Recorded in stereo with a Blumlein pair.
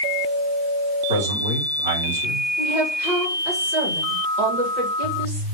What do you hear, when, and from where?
1.1 s a man speaking: 65° right, 4.5 m
2.6 s a woman speaking: 40° right, 3.5 m